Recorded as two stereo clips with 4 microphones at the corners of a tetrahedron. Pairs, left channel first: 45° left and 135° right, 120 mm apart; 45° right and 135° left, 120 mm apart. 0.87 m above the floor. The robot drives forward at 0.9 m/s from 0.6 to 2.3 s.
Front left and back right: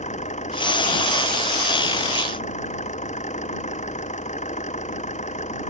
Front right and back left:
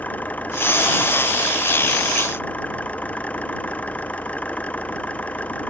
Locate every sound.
0.0 s an engine running: 35° left